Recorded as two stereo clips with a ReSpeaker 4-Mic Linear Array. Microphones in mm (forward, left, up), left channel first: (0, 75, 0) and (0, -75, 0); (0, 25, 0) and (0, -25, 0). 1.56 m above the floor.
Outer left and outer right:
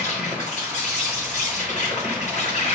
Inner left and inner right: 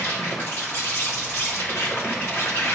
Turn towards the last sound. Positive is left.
turn(degrees=50)  # may be behind; listen again after turning